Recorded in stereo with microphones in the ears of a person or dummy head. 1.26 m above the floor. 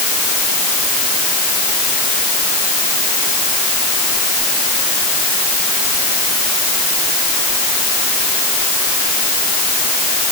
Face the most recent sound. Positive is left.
No sound to turn to.